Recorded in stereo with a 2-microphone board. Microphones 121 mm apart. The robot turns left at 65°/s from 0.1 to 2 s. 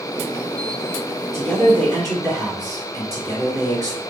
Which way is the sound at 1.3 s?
100° right.